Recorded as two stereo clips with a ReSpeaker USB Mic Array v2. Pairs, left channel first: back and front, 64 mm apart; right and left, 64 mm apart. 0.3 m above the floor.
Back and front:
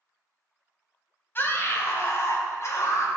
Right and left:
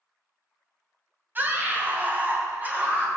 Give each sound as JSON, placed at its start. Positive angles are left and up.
{"t": 1.4, "sound": "a scream", "azimuth_deg": 135, "distance_m": 2.0}